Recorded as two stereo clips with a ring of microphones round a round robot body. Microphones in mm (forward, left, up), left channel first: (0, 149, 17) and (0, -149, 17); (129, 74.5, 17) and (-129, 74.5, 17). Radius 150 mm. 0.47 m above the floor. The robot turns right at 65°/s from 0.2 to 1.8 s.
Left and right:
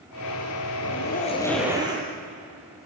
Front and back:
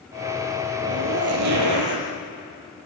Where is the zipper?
130° left, 5 m; by 2.1 s 165° right, 5 m.